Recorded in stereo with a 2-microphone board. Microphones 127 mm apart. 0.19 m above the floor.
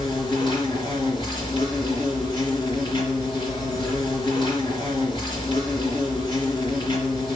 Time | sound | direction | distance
0.0 | an insect | 40° left (ahead or behind) | 3 m